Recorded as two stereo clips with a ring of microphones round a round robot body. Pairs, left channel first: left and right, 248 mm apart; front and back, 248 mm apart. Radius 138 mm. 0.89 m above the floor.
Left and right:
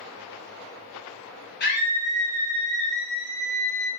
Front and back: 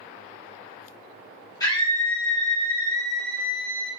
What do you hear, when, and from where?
1.6 s a scream: 70° left, 1.2 m